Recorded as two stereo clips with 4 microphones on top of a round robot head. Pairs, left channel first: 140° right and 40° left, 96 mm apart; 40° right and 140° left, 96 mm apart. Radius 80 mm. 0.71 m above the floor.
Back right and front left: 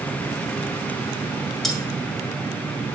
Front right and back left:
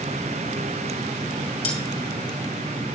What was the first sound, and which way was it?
Cutlery clinking, 50° right.